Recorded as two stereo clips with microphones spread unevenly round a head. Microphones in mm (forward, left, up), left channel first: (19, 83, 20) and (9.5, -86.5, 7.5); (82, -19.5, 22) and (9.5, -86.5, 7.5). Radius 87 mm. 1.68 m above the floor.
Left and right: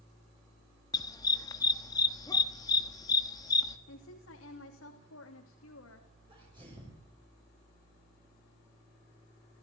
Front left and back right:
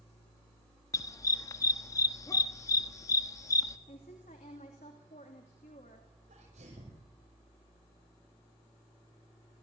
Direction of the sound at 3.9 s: 85° left.